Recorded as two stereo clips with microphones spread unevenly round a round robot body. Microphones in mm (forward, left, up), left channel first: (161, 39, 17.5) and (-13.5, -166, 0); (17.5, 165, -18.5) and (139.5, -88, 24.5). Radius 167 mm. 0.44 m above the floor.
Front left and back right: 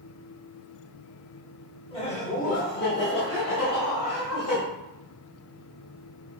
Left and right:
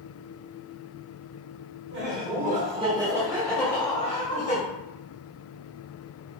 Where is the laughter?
20° right, 1.3 m; by 4.6 s 70° left, 1.3 m.